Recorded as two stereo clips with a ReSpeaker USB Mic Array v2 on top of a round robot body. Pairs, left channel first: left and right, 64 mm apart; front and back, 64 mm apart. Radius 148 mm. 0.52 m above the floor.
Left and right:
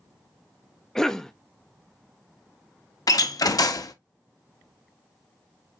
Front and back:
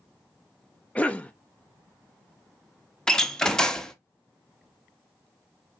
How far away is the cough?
About 0.7 m.